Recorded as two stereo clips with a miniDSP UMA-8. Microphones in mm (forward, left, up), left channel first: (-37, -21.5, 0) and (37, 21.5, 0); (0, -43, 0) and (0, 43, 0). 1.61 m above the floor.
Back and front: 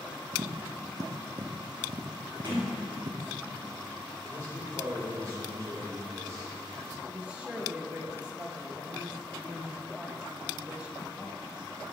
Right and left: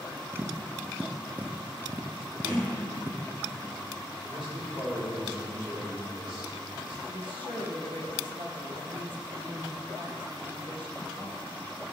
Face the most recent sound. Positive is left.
turn(degrees=110)